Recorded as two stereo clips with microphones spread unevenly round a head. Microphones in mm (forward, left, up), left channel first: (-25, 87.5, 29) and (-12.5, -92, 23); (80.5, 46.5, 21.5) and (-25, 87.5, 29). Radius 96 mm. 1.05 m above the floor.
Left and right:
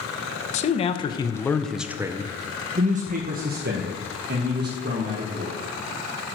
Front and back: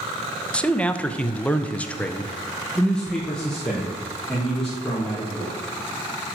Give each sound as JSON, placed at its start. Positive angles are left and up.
{"t": 0.5, "sound": "a man speaking", "azimuth_deg": 55, "distance_m": 1.0}